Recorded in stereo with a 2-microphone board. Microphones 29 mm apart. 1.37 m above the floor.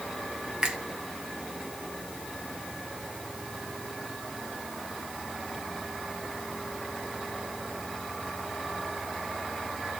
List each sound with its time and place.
0.6 s a finger snap: 30° right (ahead or behind), 1.0 m